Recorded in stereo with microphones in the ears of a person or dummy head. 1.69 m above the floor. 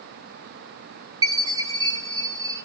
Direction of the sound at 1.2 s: 20° right (ahead or behind).